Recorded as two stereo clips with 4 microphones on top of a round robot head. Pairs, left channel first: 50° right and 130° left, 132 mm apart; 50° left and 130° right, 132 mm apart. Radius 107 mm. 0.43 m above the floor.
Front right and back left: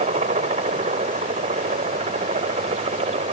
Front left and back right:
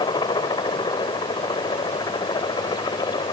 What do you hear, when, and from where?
0.0 s a helicopter: 105° left